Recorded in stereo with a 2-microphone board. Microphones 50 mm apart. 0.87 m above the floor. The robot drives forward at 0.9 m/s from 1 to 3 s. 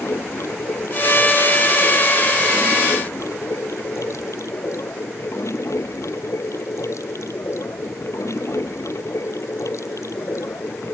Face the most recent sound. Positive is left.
turn(degrees=75)  # may be behind; listen again after turning